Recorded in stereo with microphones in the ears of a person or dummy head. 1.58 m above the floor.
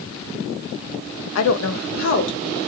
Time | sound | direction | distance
1.4 | a woman speaking | 80° left | 0.5 m